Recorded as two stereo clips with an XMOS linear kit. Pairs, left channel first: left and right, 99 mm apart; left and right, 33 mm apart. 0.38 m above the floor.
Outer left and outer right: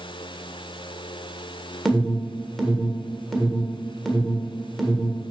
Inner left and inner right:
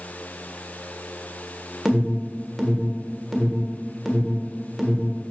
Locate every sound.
1.9 s an alarm: centre (ahead or behind), 1.4 m